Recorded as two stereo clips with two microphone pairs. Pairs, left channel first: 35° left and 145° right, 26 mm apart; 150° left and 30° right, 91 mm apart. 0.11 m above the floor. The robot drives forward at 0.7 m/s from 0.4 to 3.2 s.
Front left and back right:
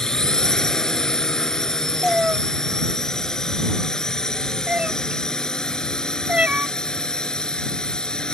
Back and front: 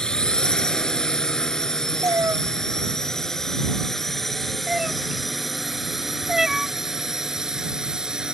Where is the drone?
75° left; by 8.3 s 50° left.